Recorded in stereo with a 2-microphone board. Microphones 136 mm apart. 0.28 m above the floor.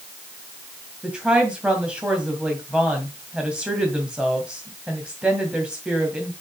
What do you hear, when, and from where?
1.0 s a woman speaking: 5° right (ahead or behind), 2.0 m